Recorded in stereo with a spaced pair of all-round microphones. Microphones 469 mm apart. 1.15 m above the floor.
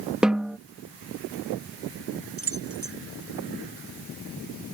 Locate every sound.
0.2 s a snare drum: centre (ahead or behind)
2.4 s keys jangling: 75° right (ahead or behind)